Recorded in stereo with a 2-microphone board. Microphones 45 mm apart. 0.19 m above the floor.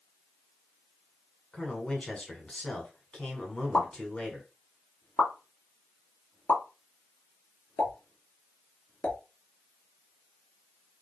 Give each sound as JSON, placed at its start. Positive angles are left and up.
{"t": 1.5, "sound": "a man speaking", "side_deg": 25, "distance_m": 1.8}
{"t": 3.7, "sound": "a pop", "side_deg": 35, "distance_m": 1.3}